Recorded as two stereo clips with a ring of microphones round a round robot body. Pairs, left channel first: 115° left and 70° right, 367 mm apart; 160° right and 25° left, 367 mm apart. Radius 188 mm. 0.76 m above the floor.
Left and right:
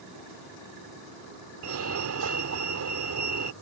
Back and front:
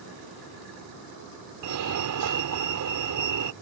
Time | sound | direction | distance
1.6 | a fire alarm | 20° right | ?